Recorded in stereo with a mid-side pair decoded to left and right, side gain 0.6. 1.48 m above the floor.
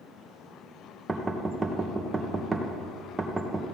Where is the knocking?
15° right, 1.4 m.